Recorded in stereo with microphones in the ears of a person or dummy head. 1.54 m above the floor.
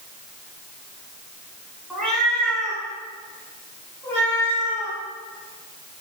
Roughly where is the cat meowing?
Centre.